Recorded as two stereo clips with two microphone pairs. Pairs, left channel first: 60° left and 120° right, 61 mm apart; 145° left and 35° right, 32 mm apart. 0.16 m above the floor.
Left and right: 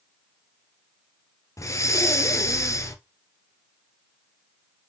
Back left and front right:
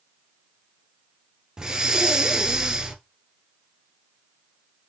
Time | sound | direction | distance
1.6 | breathing | 35° left | 0.5 m